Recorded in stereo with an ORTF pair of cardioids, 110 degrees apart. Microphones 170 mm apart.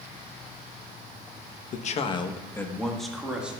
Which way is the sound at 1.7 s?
50° left.